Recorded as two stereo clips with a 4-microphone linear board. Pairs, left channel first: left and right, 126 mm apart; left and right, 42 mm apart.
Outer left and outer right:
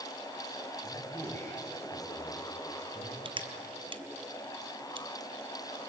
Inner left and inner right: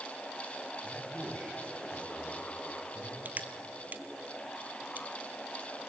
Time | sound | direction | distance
0.8 | a man speaking | 20° left (ahead or behind) | 9.5 m
3.2 | crushing | 45° right (ahead or behind) | 1.3 m